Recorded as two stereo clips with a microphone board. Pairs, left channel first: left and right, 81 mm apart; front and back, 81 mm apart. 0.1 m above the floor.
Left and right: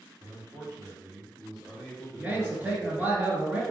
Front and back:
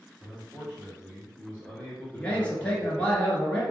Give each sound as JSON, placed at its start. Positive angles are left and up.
{"t": 0.2, "sound": "a man speaking", "azimuth_deg": -100, "distance_m": 1.7}
{"t": 2.1, "sound": "a man speaking", "azimuth_deg": -50, "distance_m": 1.3}